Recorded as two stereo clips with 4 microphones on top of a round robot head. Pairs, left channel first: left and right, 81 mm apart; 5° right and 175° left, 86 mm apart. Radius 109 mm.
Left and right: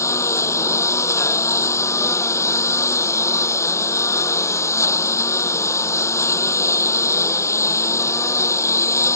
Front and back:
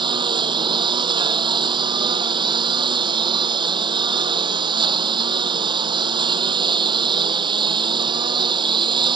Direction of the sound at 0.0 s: 145° left.